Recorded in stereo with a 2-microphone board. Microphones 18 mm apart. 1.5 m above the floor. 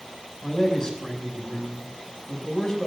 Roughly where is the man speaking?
Left.